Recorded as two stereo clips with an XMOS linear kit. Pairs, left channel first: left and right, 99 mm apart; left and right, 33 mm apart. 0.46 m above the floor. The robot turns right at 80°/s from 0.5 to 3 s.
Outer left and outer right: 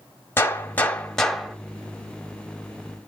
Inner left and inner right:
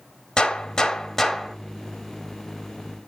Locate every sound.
0.4 s a gunshot: 25° left (ahead or behind), 1.2 m; by 1.6 s 5° right (ahead or behind), 1.2 m